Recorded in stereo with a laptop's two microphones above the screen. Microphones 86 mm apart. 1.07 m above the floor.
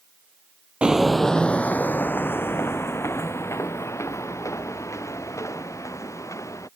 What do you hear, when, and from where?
0.8 s footsteps: 10° right (ahead or behind); by 6.7 s 35° left (ahead or behind)